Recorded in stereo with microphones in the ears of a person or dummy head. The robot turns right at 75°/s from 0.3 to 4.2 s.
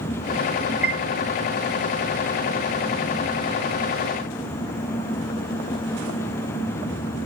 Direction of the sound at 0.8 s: 5° right (ahead or behind).